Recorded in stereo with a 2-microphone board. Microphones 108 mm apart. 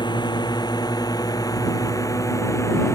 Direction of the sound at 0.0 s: 45° left (ahead or behind).